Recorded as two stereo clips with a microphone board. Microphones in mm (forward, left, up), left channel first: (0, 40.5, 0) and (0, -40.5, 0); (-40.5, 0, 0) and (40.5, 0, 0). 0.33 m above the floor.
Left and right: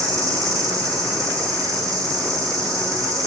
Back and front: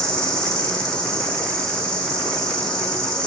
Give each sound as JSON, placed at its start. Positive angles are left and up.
{"t": 0.0, "sound": "an insect", "azimuth_deg": -105, "distance_m": 3.0}